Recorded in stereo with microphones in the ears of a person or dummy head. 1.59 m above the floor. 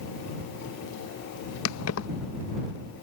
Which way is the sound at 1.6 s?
75° left (ahead or behind).